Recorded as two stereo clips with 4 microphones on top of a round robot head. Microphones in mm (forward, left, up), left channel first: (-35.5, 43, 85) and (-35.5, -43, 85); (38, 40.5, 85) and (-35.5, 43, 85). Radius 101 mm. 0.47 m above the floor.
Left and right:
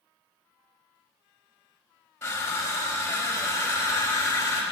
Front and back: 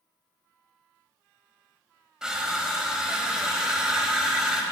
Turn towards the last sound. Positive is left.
turn(degrees=105)